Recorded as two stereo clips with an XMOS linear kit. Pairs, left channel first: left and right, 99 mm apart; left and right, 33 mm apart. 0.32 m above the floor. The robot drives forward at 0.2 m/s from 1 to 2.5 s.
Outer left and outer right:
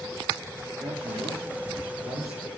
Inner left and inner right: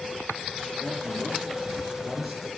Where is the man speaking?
Centre (ahead or behind), 5 m.